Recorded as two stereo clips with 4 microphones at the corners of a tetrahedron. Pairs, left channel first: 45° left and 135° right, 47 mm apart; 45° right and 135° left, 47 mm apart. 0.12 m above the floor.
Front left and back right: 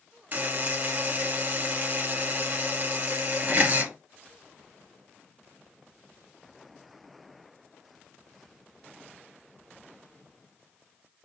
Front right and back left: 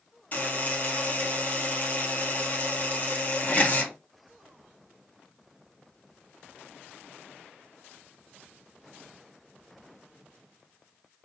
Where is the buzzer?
95° right, 1.9 m.